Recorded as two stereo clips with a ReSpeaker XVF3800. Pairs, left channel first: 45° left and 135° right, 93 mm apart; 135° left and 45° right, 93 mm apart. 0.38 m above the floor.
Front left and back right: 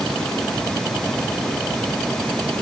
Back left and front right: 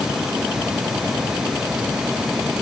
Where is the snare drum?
I don't hear a snare drum.